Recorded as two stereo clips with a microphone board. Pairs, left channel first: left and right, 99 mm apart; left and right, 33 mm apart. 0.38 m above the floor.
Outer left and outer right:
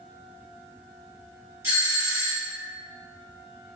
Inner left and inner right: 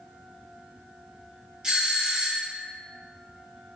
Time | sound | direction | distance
1.6 | a doorbell | 30° right (ahead or behind) | 2.0 m